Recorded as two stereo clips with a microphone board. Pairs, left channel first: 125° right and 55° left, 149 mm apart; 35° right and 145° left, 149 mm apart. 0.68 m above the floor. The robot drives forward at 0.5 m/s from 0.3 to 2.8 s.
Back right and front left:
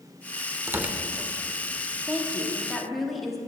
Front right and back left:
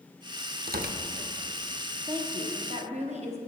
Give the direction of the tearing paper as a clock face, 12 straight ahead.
8 o'clock.